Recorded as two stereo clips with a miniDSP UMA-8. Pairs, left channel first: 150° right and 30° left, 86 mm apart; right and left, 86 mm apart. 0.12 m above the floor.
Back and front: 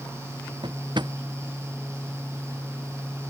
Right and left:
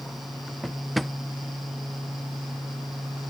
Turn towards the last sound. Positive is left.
turn(degrees=0)